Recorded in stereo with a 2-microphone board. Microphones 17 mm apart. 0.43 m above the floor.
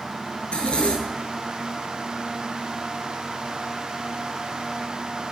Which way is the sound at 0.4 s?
75° left (ahead or behind).